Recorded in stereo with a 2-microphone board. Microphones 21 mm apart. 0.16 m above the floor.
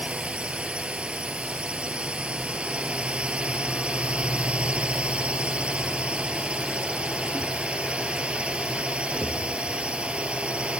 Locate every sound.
0.0 s a drone: 65° right (ahead or behind)